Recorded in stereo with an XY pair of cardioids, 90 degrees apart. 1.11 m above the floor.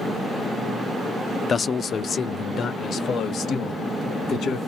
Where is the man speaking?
45° left, 0.6 m; by 4.6 s 75° left, 2.5 m.